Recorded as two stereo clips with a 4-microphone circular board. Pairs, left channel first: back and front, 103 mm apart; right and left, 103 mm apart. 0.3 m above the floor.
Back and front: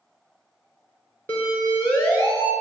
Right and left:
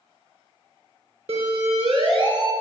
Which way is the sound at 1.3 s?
110° left.